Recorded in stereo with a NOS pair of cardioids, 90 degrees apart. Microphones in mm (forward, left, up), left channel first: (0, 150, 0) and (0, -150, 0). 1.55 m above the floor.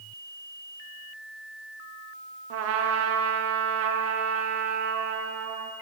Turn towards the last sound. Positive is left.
turn(degrees=-60)